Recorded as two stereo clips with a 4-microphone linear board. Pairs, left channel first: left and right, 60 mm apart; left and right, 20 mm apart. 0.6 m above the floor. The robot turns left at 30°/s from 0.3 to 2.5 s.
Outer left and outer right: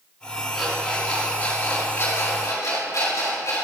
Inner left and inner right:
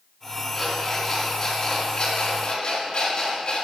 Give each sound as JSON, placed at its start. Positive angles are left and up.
{"t": 0.5, "sound": "an alarm clock", "side_deg": 0, "distance_m": 3.0}